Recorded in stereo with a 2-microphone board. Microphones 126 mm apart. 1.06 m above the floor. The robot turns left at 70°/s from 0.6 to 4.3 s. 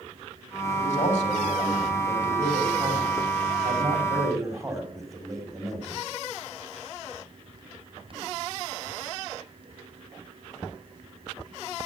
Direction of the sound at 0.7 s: 95° left.